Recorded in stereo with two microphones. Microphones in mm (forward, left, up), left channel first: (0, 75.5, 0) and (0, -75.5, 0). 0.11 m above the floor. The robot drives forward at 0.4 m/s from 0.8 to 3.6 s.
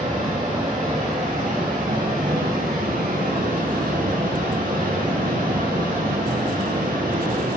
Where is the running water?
60° right (ahead or behind), 1.7 m; by 7.6 s 80° right, 1.5 m.